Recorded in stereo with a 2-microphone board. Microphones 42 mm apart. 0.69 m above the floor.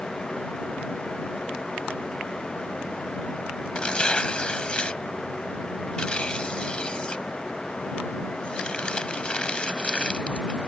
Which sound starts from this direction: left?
Tearing paper, at 3.8 s.